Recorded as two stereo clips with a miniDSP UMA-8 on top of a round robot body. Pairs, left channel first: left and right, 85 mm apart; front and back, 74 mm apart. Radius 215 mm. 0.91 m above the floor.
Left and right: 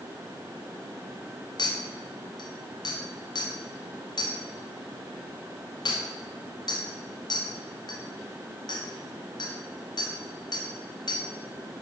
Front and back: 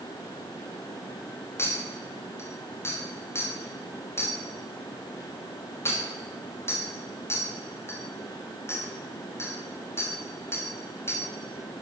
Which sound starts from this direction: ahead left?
A clink, at 1.6 s.